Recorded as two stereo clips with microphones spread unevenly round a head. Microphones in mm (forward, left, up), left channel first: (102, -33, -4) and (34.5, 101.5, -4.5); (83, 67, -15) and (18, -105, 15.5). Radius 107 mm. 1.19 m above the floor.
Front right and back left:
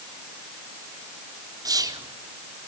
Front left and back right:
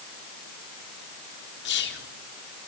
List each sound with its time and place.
1.6 s whispering: 50° left, 4 m